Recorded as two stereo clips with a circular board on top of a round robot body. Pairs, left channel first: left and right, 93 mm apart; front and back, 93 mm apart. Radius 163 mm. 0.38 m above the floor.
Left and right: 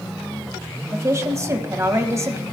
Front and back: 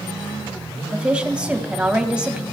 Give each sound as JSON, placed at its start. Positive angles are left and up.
{"t": 0.9, "sound": "a woman speaking", "azimuth_deg": -110, "distance_m": 1.4}